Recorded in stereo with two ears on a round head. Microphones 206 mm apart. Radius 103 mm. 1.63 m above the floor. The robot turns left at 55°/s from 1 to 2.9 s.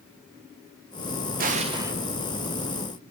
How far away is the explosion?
About 0.5 m.